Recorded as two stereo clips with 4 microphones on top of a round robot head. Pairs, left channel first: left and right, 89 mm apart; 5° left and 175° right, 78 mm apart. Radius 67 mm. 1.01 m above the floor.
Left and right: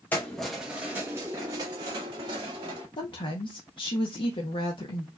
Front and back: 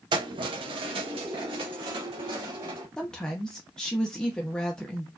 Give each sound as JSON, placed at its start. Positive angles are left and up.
{"t": 0.1, "sound": "keys jangling", "azimuth_deg": 165, "distance_m": 0.8}
{"t": 3.0, "sound": "a woman speaking", "azimuth_deg": 85, "distance_m": 0.8}